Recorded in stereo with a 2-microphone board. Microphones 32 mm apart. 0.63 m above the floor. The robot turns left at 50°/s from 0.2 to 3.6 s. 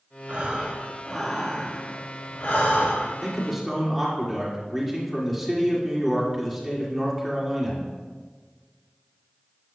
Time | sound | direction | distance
0.3 | breathing | 130° right | 1.2 m
3.2 | a man speaking | 20° right (ahead or behind) | 1.8 m